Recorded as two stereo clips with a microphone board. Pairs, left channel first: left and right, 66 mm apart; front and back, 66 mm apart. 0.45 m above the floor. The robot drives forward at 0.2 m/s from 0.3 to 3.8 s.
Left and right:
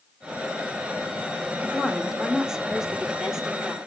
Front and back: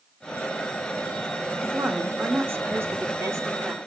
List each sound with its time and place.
1.6 s a woman speaking: 160° right, 1.0 m; by 3.8 s 170° right, 1.2 m